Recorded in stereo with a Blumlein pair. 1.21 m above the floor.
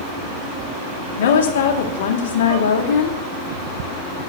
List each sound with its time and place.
1.2 s a woman speaking: 60° left, 2.5 m